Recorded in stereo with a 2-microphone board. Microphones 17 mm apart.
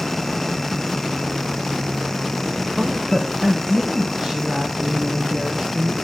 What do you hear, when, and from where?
2.8 s a woman speaking: 15° right (ahead or behind), 1.2 m; by 6.0 s 65° right (ahead or behind), 5 m